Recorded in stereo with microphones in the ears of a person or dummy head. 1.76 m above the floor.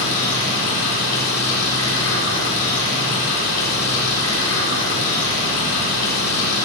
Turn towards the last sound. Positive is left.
turn(degrees=75)  # may be behind; listen again after turning